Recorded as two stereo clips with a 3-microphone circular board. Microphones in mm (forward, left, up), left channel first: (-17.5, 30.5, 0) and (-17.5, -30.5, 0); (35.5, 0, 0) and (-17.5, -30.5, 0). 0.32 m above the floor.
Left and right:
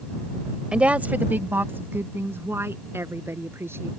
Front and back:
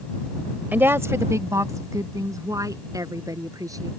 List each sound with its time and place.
0.7 s a woman speaking: 145° right; by 3.9 s 135° right